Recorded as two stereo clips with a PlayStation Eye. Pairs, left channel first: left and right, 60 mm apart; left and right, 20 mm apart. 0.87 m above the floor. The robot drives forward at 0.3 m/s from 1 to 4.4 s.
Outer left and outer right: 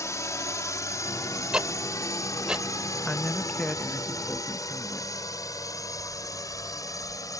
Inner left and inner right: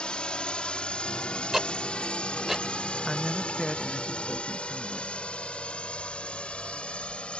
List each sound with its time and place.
0.0 s a drone: 60° left (ahead or behind); by 7.4 s 70° left (ahead or behind)
1.5 s ticking: 15° right (ahead or behind)
3.0 s a man speaking: 20° left (ahead or behind); by 5.1 s 15° left (ahead or behind)